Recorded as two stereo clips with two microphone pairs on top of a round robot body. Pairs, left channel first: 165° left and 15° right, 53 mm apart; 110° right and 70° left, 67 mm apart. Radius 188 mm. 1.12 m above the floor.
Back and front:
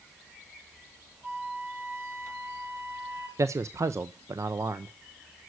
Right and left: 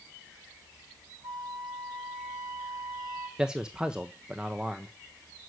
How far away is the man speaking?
About 0.7 m.